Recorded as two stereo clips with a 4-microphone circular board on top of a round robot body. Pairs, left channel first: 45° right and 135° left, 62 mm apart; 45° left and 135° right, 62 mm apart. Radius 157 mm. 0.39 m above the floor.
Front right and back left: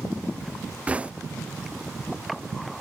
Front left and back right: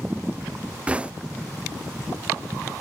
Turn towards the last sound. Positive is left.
turn(degrees=175)